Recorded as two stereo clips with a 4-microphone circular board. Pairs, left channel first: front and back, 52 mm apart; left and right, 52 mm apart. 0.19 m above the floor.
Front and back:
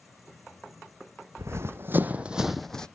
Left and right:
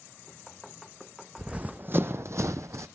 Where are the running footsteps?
155° right, 0.8 m; by 2.9 s 75° right, 0.6 m.